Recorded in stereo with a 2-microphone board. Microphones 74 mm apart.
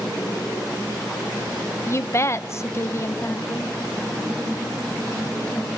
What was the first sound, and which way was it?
A woman speaking, 35° left (ahead or behind).